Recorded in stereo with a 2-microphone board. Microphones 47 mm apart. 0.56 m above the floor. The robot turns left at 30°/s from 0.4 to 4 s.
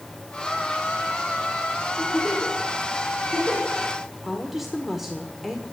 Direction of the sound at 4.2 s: 5° right (ahead or behind).